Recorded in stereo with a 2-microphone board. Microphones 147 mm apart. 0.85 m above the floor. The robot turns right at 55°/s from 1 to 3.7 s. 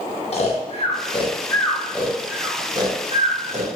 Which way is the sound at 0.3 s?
45° left (ahead or behind).